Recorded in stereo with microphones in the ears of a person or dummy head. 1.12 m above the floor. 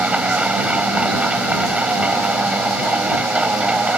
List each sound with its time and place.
0.0 s a machine running: 10° right (ahead or behind)